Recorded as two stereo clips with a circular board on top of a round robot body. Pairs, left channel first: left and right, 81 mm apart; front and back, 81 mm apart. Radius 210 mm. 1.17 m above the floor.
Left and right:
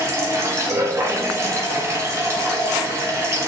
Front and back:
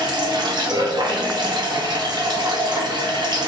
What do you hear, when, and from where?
0.0 s running water: 145° right, 0.9 m